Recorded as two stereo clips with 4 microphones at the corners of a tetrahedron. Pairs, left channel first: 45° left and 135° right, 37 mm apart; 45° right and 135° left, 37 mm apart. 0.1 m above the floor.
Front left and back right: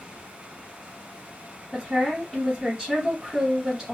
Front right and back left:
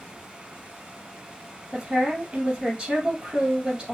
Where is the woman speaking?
175° right, 1.7 m.